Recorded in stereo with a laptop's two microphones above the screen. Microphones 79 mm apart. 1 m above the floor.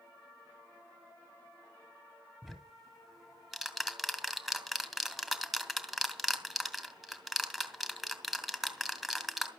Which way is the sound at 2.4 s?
Centre (ahead or behind).